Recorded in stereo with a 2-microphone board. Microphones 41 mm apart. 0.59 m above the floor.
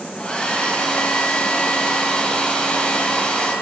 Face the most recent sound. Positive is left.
turn(degrees=30)  # may be behind; listen again after turning